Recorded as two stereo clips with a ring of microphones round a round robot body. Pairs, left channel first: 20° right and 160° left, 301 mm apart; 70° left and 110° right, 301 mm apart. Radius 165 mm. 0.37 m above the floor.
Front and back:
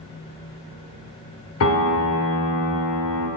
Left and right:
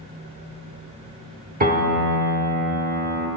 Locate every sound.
1.6 s a piano: 55° right, 0.8 m